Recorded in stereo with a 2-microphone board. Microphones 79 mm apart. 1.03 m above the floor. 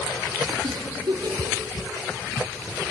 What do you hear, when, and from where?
0.6 s a giggle: 75° right (ahead or behind), 3 m